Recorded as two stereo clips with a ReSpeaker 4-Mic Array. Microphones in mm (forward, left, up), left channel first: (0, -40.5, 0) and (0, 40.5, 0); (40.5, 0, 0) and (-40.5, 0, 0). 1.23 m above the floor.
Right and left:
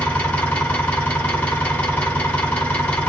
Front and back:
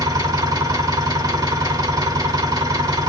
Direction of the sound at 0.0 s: 160° right.